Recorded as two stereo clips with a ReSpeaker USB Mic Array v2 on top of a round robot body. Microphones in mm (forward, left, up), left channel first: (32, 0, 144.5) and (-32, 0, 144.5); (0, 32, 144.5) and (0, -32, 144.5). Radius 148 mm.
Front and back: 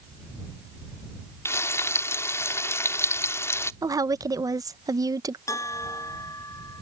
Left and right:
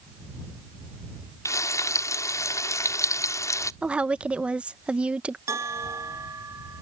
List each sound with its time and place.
1.4 s frying: 50° left
3.8 s a woman speaking: 160° right
5.5 s a bell: 40° right